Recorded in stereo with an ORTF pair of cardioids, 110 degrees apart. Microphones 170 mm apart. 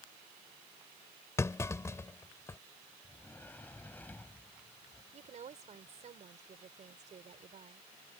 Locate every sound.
1.4 s a clunk: 20° left
3.0 s a sliding door: 10° left
5.1 s a woman speaking: 45° right